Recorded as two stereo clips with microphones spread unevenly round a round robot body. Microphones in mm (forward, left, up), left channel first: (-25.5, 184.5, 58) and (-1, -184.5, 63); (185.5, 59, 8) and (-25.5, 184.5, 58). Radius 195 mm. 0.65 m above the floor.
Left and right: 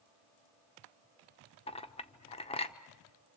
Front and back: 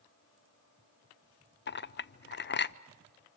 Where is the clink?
20° left, 0.8 m.